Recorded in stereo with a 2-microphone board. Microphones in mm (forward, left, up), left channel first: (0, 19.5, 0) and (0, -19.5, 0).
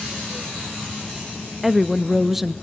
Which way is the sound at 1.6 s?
10° right (ahead or behind).